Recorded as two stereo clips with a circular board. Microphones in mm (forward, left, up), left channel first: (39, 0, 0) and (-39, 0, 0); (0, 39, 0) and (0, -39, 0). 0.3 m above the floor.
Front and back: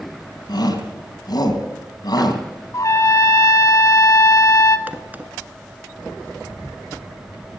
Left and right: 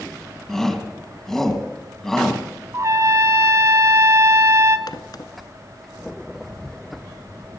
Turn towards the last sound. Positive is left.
turn(degrees=115)